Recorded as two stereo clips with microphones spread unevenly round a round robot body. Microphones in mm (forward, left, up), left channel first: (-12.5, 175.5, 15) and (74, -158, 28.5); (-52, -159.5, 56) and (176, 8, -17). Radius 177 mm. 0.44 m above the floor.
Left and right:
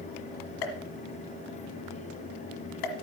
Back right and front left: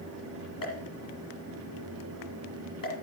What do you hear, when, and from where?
0.6 s a pop: 140° left, 1.5 m